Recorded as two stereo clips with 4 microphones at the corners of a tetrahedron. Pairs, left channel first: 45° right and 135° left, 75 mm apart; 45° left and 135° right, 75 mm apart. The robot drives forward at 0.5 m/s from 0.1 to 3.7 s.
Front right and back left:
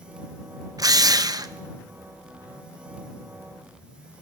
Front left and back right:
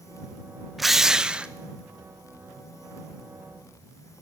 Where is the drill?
135° left, 0.7 m; by 1.5 s 155° left, 1.0 m.